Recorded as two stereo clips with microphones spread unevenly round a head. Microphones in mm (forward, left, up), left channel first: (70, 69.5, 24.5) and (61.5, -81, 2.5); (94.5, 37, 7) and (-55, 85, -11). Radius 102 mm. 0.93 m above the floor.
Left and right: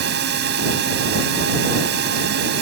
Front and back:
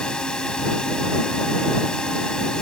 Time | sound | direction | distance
0.0 | a drone | 105° right | ?